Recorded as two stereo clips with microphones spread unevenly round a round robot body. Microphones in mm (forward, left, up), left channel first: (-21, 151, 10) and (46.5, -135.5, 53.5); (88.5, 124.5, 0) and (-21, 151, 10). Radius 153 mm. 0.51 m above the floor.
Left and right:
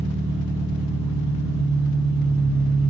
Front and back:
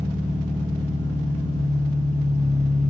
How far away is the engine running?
About 5 m.